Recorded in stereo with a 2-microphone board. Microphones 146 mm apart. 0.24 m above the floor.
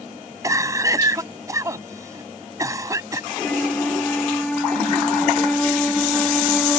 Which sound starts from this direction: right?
A cough, at 0.4 s.